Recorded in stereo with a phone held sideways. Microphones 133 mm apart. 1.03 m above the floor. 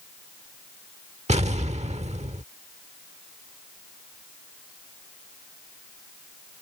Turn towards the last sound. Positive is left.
turn(degrees=-50)  # may be behind; listen again after turning